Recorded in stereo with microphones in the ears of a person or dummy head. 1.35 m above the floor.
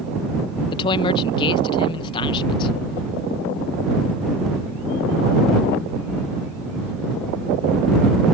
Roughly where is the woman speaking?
Left.